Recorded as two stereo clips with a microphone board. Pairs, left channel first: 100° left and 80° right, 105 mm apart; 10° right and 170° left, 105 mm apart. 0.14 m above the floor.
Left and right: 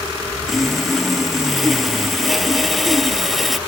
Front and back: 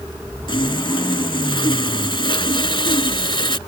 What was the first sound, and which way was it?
Sawing, 10° left.